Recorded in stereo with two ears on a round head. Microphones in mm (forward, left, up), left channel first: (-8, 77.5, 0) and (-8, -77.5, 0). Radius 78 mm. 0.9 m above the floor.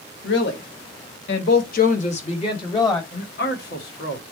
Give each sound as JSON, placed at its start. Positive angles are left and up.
{"t": 0.2, "sound": "a woman speaking", "side_deg": 65, "distance_m": 1.4}
{"t": 3.1, "sound": "a man speaking", "side_deg": 60, "distance_m": 1.5}